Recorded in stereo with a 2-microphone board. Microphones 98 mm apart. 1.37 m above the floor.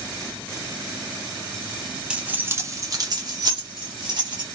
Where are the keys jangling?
10° right (ahead or behind), 0.5 m; by 4.5 s 55° right (ahead or behind), 1.2 m.